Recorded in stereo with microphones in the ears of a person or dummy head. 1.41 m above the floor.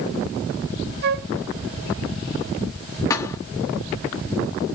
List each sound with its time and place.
1.0 s a flute: 55° right (ahead or behind), 0.8 m
3.1 s a thud: 20° left (ahead or behind), 1.3 m